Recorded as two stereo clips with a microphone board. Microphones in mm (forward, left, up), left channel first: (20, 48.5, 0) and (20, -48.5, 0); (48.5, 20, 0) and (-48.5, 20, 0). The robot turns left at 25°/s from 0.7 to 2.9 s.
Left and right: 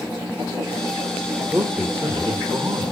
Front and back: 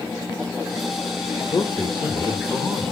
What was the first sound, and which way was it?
A man speaking, 20° right.